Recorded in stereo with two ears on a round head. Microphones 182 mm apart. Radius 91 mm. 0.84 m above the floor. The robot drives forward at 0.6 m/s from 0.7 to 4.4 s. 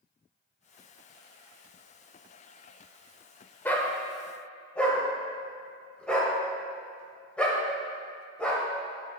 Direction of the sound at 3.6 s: 10° left (ahead or behind).